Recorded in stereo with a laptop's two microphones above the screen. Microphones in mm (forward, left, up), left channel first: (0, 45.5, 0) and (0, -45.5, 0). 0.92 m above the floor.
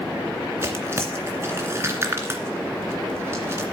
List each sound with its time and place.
0.6 s tearing paper: 25° right (ahead or behind), 2.5 m